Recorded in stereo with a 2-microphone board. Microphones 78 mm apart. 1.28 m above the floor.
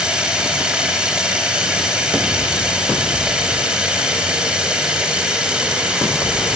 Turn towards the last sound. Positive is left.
turn(degrees=-15)  # may be behind; listen again after turning